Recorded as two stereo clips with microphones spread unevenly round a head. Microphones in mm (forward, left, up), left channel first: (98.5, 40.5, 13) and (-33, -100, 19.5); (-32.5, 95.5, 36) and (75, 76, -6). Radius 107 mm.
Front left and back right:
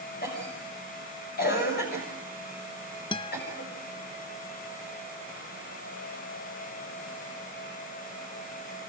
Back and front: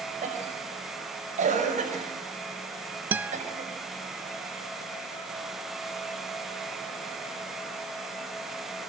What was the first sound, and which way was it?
A cough, 5° left.